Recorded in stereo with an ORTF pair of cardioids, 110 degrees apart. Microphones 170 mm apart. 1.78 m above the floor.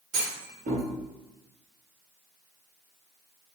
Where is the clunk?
55° right, 1.8 m.